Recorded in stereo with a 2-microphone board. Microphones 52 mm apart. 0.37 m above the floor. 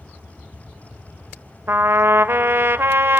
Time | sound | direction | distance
1.7 | a trumpet | 45° right (ahead or behind) | 0.6 m